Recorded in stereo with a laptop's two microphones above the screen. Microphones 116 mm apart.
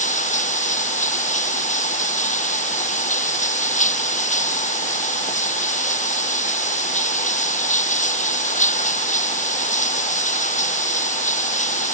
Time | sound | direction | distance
0.0 | running water | 80° left | ?